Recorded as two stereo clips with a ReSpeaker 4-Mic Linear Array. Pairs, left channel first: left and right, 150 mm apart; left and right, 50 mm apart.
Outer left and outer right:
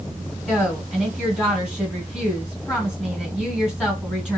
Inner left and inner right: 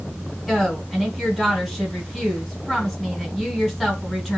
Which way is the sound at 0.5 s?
5° left (ahead or behind).